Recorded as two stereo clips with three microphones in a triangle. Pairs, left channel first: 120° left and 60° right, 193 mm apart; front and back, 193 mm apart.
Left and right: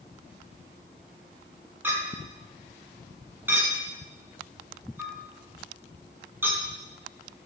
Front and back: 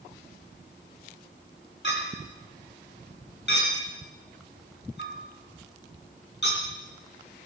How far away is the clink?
About 3 m.